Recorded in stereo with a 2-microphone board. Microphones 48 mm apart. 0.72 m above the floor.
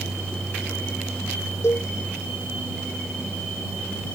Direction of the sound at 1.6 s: 60° left (ahead or behind).